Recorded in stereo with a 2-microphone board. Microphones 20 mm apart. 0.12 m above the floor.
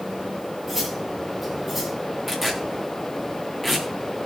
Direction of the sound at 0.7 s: 5° right (ahead or behind).